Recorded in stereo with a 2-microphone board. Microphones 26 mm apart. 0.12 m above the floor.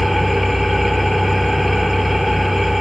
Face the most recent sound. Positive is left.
turn(degrees=-5)  # may be behind; listen again after turning